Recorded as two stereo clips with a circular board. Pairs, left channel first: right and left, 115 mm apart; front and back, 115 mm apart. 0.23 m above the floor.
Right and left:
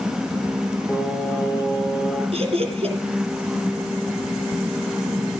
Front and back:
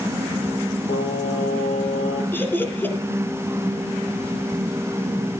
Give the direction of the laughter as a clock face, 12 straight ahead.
10 o'clock.